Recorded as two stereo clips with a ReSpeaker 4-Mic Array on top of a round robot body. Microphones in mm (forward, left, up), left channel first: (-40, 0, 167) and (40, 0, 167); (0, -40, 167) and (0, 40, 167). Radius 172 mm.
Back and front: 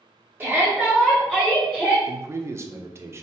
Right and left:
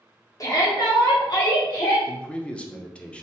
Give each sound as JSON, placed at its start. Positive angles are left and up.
{"t": 0.4, "sound": "a shout", "azimuth_deg": -60, "distance_m": 0.9}
{"t": 2.1, "sound": "a man speaking", "azimuth_deg": -20, "distance_m": 0.6}